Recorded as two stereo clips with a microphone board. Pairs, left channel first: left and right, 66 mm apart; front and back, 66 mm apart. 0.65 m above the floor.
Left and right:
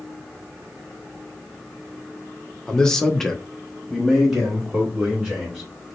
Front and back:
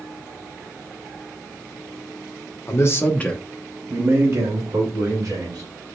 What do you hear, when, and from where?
2.7 s a man speaking: 15° left, 1.0 m; by 5.7 s 170° right, 2 m